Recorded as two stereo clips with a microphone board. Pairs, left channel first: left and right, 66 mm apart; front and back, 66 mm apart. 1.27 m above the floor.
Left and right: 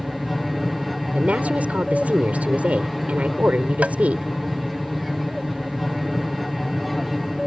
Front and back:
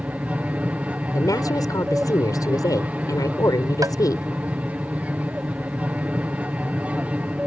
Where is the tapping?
160° right.